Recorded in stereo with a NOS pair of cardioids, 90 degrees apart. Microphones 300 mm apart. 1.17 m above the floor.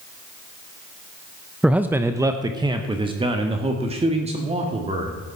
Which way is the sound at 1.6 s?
5° right.